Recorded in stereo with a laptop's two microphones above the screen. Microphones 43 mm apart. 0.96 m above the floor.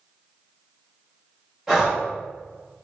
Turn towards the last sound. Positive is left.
turn(degrees=-15)  # may be behind; listen again after turning